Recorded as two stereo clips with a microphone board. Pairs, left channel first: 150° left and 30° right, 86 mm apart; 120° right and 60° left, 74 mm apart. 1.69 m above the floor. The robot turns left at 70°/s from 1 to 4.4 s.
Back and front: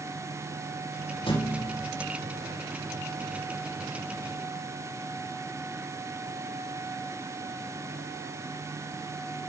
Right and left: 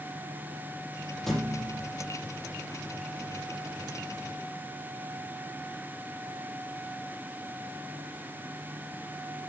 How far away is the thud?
About 6.5 m.